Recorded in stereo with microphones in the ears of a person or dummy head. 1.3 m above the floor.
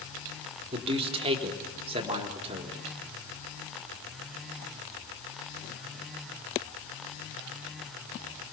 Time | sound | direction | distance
0.7 | a man speaking | 30° right (ahead or behind) | 3.5 m